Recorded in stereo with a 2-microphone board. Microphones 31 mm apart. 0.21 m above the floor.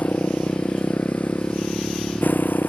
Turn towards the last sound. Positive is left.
turn(degrees=80)